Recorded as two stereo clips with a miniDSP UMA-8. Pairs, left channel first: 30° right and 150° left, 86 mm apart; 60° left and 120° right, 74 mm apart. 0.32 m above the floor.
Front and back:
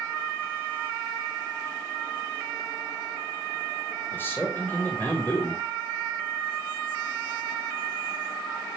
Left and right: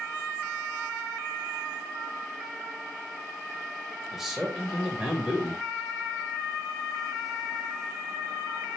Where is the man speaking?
40° right, 1.3 m.